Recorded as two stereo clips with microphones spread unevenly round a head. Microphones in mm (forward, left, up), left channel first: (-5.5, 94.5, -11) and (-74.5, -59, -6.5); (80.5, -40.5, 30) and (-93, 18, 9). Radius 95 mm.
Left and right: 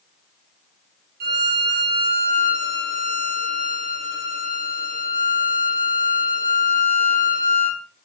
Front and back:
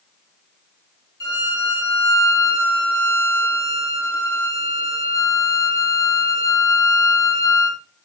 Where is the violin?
90° right, 0.8 m.